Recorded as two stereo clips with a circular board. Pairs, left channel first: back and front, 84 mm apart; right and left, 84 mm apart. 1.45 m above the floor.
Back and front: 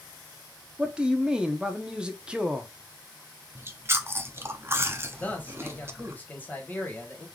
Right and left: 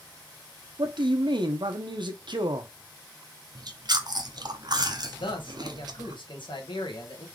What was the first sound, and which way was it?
A man speaking, 80° left.